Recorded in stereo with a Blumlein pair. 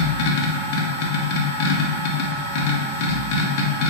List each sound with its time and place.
0.0 s a machine running: 45° left, 0.8 m